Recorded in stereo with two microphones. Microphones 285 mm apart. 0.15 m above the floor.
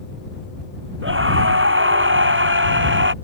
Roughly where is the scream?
Right.